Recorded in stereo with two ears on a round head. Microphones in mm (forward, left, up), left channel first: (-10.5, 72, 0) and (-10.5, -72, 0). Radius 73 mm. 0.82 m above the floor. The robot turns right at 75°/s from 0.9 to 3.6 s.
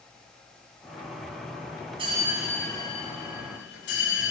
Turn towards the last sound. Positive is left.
turn(degrees=85)